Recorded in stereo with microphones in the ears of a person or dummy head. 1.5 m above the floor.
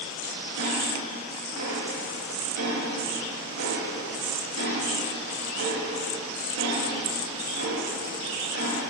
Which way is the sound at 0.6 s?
85° right.